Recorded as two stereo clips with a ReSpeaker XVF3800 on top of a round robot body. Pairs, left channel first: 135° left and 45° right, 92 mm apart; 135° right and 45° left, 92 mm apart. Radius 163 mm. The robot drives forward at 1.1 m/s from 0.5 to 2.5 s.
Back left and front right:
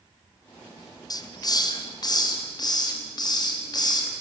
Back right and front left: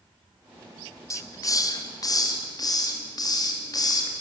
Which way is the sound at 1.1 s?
175° left.